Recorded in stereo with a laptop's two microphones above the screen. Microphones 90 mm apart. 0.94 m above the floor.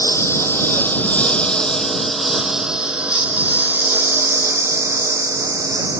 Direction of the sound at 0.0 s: 30° left (ahead or behind).